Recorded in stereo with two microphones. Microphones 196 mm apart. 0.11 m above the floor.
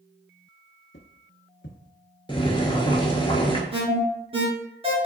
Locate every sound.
0.9 s footsteps: 65° left (ahead or behind), 0.8 m
2.3 s boiling: 25° left (ahead or behind), 0.6 m
3.7 s an alarm: 30° right (ahead or behind), 1.1 m